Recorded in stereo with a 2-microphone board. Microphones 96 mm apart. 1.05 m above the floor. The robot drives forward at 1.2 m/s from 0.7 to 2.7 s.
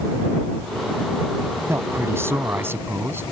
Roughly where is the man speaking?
Right.